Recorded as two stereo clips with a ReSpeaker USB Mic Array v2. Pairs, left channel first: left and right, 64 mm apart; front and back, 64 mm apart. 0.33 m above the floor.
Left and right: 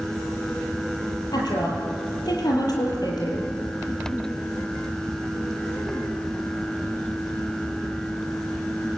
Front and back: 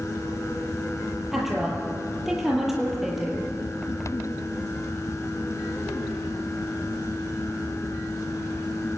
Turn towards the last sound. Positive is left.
turn(degrees=95)